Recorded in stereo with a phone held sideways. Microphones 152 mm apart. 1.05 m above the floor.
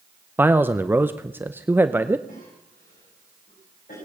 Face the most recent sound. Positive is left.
turn(degrees=65)  # may be behind; listen again after turning